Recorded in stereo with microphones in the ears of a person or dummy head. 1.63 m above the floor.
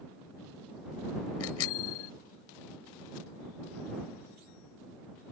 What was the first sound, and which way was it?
A bicycle bell, 75° left (ahead or behind).